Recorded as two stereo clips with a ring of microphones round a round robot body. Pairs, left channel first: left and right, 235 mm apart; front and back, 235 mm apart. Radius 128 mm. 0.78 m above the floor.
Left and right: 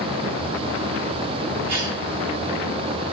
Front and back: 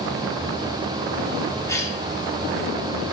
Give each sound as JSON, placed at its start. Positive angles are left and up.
{"t": 1.7, "sound": "a cough", "azimuth_deg": -75, "distance_m": 2.5}